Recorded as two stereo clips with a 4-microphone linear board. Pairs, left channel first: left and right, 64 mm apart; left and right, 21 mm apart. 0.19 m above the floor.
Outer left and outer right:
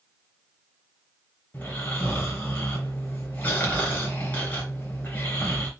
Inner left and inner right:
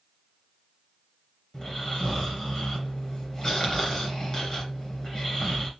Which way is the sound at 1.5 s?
25° left (ahead or behind).